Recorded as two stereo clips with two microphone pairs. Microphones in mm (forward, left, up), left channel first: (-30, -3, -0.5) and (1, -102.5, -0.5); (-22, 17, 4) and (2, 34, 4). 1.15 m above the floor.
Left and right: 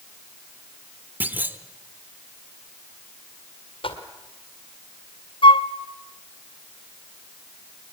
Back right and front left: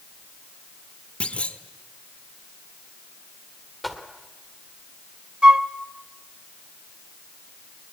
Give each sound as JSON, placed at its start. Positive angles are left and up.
{"t": 1.2, "sound": "a clunk", "azimuth_deg": -135, "distance_m": 1.0}
{"t": 3.8, "sound": "footsteps", "azimuth_deg": 120, "distance_m": 2.0}
{"t": 5.4, "sound": "a flute", "azimuth_deg": 85, "distance_m": 0.7}